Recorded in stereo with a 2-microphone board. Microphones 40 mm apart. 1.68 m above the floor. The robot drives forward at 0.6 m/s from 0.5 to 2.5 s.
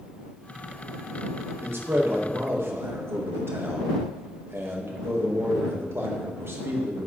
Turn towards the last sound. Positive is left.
turn(degrees=-85)